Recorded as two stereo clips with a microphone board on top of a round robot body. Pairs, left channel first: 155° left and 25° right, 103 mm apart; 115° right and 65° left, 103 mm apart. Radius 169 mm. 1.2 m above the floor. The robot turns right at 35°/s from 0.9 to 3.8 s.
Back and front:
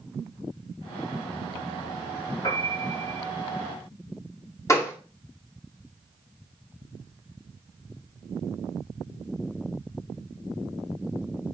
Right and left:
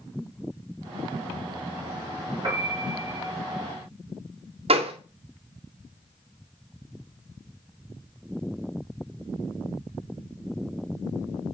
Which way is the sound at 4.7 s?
95° left.